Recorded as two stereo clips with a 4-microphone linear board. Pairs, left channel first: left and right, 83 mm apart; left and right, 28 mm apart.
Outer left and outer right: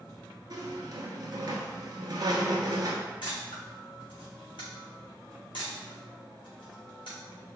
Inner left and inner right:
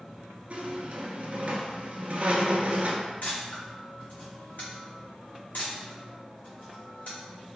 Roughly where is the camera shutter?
Left.